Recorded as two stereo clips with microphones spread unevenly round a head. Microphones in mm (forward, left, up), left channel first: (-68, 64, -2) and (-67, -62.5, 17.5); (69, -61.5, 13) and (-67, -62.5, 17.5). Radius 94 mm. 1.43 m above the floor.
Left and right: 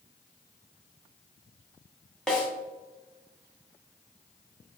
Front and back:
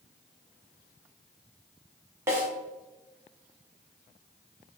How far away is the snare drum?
About 0.9 m.